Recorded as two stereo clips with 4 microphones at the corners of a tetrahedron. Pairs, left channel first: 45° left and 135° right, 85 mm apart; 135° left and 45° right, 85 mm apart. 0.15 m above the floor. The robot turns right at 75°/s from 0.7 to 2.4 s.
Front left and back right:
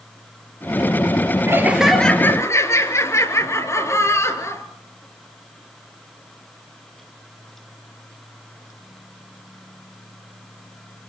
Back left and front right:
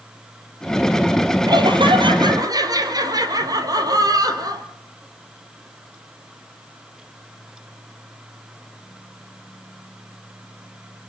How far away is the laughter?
About 3 m.